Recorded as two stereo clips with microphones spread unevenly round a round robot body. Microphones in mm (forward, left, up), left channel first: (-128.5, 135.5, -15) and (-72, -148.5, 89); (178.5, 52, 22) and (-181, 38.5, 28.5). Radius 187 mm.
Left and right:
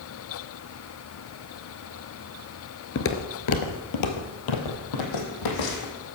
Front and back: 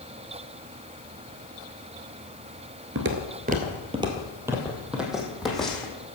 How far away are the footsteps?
About 1.1 m.